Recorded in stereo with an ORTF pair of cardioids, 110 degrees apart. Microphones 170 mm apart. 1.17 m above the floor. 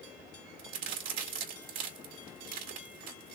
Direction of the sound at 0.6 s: 60° right.